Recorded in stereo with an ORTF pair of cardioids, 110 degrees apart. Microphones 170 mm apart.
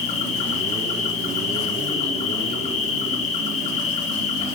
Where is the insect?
45° left, 2 m.